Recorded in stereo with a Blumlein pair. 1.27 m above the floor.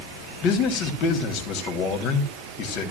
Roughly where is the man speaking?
Ahead left.